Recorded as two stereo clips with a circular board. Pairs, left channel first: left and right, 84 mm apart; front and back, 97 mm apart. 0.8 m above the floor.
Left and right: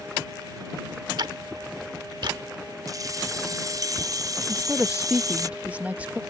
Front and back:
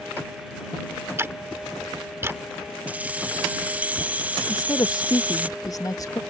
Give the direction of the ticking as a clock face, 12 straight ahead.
4 o'clock.